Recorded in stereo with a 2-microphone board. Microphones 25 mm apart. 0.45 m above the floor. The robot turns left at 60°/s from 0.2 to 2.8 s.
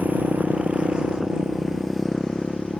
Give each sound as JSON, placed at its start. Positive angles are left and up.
{"t": 0.0, "sound": "a motorcycle", "side_deg": -80}